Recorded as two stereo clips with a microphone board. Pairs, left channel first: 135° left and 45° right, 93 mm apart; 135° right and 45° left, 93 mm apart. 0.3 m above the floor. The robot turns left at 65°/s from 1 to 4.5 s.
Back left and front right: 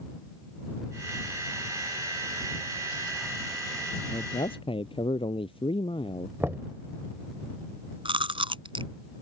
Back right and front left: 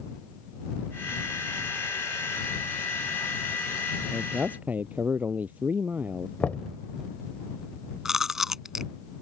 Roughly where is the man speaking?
Behind left.